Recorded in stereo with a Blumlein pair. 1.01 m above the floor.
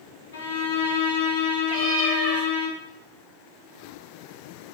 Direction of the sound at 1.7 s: 50° right.